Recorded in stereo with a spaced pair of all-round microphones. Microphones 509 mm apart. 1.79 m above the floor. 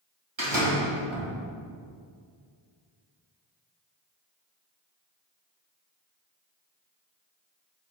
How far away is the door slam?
About 2 m.